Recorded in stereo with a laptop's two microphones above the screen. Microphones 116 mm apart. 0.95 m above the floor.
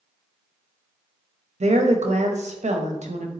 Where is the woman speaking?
75° right (ahead or behind), 0.7 m.